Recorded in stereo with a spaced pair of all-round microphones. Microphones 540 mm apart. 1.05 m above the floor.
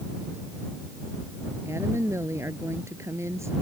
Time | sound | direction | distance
1.6 | a woman speaking | 5° right (ahead or behind) | ?